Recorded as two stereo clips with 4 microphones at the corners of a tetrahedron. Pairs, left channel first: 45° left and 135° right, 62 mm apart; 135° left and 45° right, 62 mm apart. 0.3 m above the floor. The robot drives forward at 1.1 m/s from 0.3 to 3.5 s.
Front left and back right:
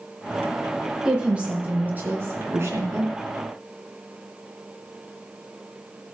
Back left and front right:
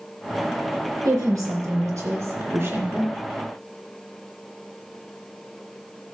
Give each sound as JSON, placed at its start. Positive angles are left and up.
{"t": 1.1, "sound": "a woman speaking", "azimuth_deg": -60, "distance_m": 3.5}